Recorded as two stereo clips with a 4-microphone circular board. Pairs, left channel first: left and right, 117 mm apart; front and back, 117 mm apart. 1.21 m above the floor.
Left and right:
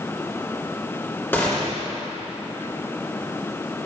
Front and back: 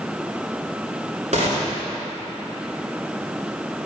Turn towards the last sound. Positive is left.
turn(degrees=160)